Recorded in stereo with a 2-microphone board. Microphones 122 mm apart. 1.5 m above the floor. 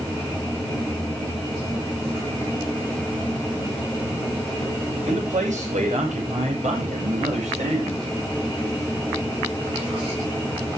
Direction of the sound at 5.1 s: 85° right.